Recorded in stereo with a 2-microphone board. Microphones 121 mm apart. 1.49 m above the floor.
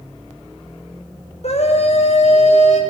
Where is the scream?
60° left (ahead or behind), 5.5 m.